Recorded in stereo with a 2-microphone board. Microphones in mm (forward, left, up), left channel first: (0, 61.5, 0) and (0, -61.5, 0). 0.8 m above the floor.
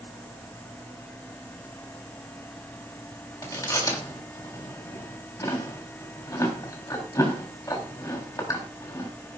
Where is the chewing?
30° left (ahead or behind), 3.5 m.